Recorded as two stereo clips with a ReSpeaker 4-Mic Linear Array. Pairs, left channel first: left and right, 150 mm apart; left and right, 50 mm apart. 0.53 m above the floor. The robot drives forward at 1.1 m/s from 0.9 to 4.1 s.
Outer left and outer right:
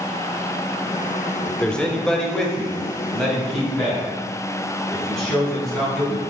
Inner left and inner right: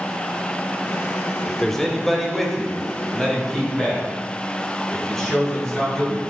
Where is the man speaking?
10° left (ahead or behind), 0.9 m; by 6.2 s centre (ahead or behind), 3.5 m.